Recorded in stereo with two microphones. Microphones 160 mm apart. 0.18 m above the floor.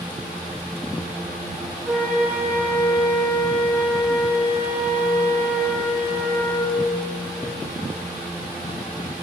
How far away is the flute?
About 4 m.